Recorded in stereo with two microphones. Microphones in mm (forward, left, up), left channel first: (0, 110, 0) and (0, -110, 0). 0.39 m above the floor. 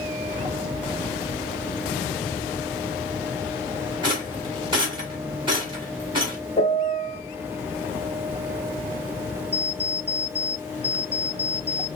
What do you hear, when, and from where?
4.0 s a rattle: 20° right (ahead or behind), 1.6 m
6.6 s a piano: 25° left (ahead or behind), 1.3 m
9.5 s an alarm clock: 20° right (ahead or behind), 1.5 m